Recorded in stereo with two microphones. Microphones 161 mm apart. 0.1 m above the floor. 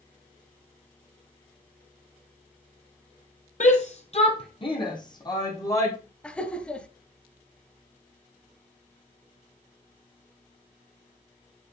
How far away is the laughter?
About 1.5 m.